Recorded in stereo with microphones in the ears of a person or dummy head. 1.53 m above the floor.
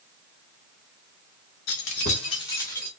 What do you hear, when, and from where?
1.7 s keys jangling: 55° left (ahead or behind), 1.2 m; by 2.9 s 5° left (ahead or behind), 1.7 m